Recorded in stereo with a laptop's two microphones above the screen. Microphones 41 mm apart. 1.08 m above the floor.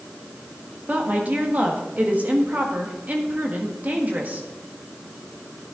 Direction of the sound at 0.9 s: 40° right (ahead or behind).